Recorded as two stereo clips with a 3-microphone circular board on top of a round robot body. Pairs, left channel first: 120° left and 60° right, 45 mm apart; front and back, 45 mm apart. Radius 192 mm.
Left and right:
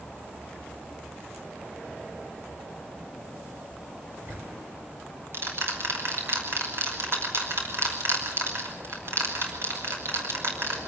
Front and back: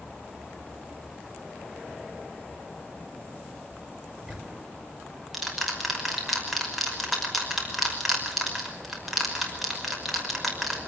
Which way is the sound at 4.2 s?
90° right.